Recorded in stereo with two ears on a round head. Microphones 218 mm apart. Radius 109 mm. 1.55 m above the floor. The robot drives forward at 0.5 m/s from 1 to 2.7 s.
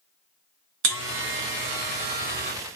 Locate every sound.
0.8 s a buzzer: 55° right (ahead or behind), 0.9 m; by 2.5 s 40° right (ahead or behind), 1.2 m